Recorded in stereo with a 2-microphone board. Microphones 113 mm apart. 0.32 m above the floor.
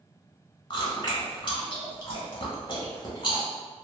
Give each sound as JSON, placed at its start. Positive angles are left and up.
{"t": 0.7, "sound": "chewing", "side_deg": 40, "distance_m": 0.9}